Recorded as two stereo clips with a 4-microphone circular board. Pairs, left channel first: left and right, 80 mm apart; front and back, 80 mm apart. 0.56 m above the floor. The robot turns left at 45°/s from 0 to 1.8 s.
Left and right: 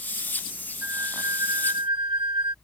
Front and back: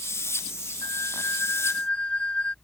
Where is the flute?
30° right; by 2.5 s 75° right.